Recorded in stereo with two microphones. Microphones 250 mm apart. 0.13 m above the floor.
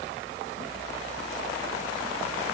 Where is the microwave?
No microwave in this recording.